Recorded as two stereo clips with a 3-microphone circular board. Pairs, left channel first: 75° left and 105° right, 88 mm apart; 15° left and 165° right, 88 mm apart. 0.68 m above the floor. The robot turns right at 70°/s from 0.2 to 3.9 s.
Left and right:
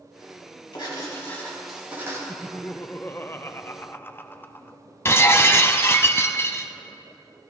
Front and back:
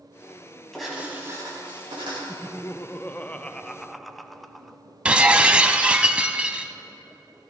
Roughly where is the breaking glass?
Behind left.